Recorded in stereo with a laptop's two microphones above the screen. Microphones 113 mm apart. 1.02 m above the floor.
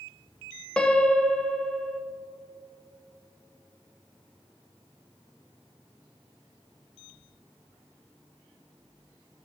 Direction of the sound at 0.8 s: 10° left (ahead or behind).